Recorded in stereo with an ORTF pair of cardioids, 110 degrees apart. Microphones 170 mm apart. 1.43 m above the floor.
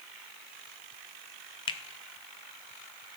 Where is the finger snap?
30° left, 0.6 m.